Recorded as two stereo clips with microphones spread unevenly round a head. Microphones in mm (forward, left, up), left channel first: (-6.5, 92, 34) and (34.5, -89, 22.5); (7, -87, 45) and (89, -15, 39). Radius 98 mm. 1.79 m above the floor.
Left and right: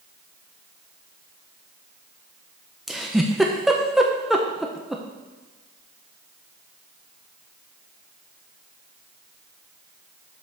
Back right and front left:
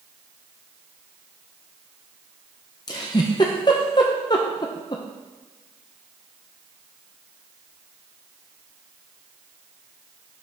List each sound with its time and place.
2.9 s a giggle: 170° right, 0.6 m